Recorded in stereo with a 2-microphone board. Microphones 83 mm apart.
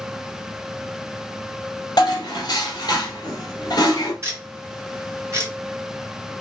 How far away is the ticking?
About 2.5 m.